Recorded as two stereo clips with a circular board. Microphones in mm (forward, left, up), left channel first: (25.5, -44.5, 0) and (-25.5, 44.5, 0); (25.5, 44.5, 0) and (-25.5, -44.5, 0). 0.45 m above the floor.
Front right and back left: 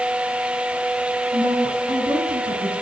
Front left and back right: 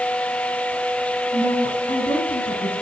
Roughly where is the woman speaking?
Left.